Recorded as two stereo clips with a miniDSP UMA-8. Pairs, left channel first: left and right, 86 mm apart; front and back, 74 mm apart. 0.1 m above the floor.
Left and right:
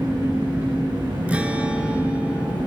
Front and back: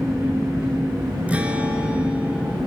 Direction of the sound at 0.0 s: 120° right.